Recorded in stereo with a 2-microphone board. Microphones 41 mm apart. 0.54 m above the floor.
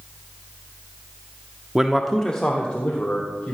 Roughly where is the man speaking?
Centre.